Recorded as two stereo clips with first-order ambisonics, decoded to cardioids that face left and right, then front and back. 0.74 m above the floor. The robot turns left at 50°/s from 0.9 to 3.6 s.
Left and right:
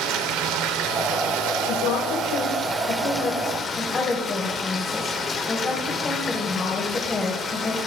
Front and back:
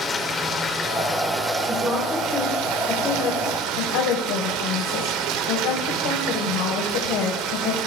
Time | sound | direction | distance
0.0 | running water | 70° right | 2.5 m
1.7 | a woman speaking | 115° left | 3 m